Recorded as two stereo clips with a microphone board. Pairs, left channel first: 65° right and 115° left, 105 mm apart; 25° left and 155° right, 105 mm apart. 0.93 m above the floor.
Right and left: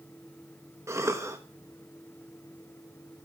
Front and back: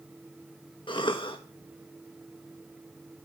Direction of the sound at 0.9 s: 55° left.